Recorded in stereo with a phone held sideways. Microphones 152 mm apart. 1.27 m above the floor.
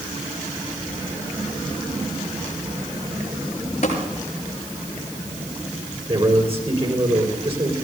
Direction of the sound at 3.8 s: 50° left (ahead or behind).